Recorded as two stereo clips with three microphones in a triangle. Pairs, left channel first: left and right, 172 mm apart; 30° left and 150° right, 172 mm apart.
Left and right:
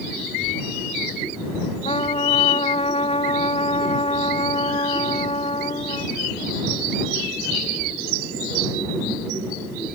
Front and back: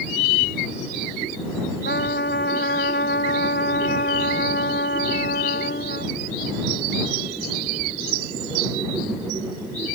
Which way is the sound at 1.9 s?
35° left.